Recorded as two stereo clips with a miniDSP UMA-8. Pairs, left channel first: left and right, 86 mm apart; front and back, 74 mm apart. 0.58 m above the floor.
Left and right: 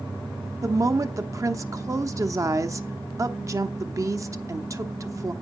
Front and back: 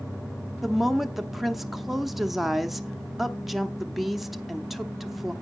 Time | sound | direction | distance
0.6 | a woman speaking | 95° right | 0.7 m